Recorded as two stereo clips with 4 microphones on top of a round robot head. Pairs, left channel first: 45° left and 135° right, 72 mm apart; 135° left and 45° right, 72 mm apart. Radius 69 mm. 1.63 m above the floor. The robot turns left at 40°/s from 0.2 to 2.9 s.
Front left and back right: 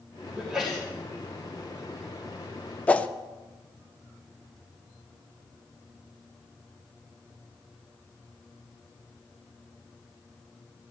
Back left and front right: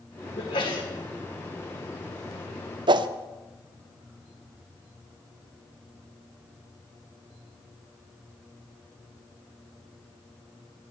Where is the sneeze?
150° left, 1.9 m; by 0.9 s 130° left, 1.9 m.